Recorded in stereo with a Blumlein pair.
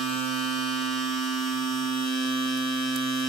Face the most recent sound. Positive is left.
turn(degrees=5)